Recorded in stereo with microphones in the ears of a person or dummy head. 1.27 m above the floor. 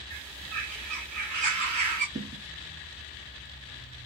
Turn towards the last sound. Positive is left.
turn(degrees=-20)  # may be behind; listen again after turning